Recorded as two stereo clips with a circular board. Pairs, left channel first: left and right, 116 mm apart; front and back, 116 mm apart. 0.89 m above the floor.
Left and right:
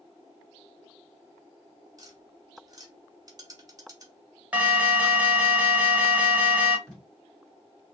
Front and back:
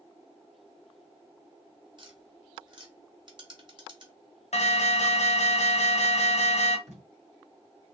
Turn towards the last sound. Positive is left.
turn(degrees=175)